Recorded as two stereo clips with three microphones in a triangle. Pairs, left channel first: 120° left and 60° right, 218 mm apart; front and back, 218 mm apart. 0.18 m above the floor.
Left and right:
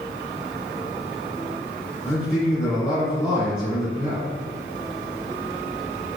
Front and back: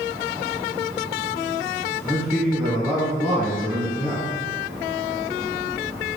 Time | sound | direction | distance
2.0 | a man speaking | 80° left | 1.3 m